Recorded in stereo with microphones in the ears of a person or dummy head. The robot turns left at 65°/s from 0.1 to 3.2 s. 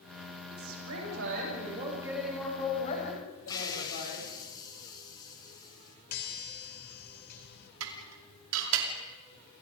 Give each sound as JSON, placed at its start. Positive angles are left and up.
{"t": 0.5, "sound": "a woman speaking", "azimuth_deg": -65, "distance_m": 8.5}
{"t": 3.5, "sound": "a hiss", "side_deg": 20, "distance_m": 3.0}
{"t": 6.1, "sound": "a chime", "side_deg": 50, "distance_m": 2.5}
{"t": 7.8, "sound": "dishes clattering", "side_deg": -80, "distance_m": 2.5}